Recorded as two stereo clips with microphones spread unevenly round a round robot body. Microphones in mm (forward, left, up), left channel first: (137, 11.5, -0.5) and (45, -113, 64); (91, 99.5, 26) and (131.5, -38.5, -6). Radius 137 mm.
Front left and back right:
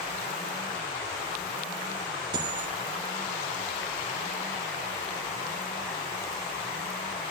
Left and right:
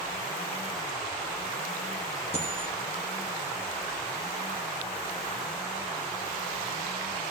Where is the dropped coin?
175° right, 3 m.